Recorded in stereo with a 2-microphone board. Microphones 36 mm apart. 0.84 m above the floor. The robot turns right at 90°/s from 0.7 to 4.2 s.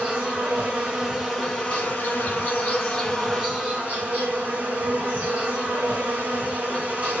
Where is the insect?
45° right, 2 m; by 7.2 s 90° right, 2 m.